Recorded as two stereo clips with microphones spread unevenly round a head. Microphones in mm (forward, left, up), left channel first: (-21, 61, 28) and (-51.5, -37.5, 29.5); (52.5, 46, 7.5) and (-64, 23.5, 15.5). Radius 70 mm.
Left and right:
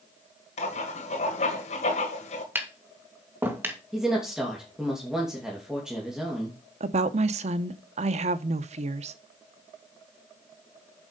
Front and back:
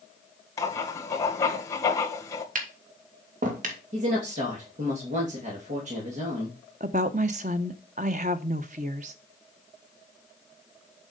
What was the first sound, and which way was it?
Writing, 75° left.